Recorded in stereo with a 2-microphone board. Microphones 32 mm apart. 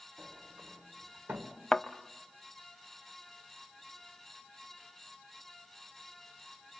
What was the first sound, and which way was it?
A sliding door, 85° right.